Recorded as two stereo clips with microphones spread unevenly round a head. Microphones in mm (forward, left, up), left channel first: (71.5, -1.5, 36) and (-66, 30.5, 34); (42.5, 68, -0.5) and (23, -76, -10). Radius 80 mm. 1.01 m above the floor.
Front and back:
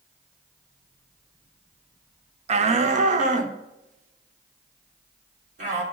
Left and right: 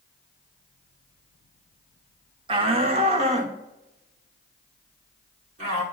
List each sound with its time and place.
2.5 s a shout: 155° right, 0.6 m; by 5.8 s 150° right, 3 m